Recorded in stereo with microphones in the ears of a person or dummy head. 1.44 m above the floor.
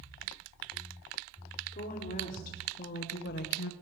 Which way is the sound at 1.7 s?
45° left (ahead or behind).